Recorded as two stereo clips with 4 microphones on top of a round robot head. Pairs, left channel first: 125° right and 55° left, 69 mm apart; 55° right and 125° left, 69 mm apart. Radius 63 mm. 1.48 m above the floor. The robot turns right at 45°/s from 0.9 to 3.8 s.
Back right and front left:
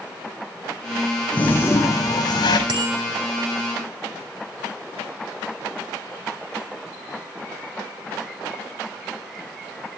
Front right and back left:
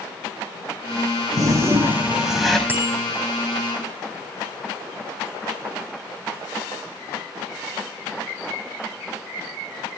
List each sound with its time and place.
1.3 s a toilet flushing: 165° left, 5 m; by 2.6 s 140° right, 5 m
2.7 s a bicycle bell: 60° left, 7.5 m; by 3.0 s 75° left, 7.5 m